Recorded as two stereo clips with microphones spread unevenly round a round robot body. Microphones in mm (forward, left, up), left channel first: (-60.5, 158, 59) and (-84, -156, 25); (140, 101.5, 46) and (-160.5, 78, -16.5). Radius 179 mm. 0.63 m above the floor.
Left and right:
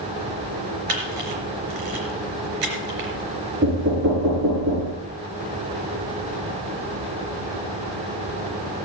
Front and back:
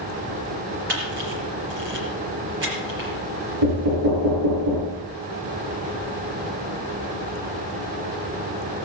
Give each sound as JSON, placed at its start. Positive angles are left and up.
{"t": 0.9, "sound": "a camera shutter", "azimuth_deg": -115, "distance_m": 3.5}
{"t": 3.6, "sound": "knocking", "azimuth_deg": -145, "distance_m": 6.5}